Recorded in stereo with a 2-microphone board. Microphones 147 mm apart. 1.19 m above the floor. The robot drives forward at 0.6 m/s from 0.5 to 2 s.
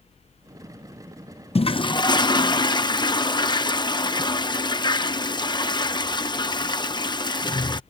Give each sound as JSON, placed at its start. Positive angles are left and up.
{"t": 1.6, "sound": "a toilet flushing", "side_deg": 45}